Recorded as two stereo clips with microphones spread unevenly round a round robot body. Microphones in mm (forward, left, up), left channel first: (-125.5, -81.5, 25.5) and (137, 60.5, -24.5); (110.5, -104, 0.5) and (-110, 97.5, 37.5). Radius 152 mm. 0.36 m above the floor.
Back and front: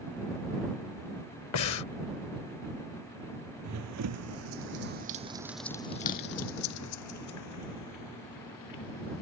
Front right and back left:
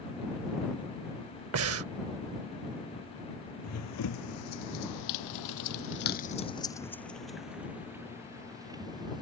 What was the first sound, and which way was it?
Breathing, 175° left.